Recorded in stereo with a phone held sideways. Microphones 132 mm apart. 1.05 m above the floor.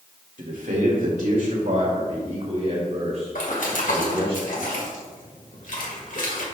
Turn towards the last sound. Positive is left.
turn(degrees=75)  # may be behind; listen again after turning